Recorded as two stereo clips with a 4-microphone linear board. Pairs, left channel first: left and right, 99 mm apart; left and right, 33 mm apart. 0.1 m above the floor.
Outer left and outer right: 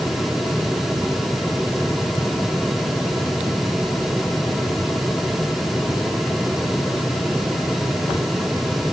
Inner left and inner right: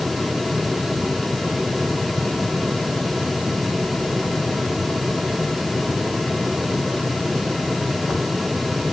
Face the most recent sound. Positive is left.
No sound to turn to.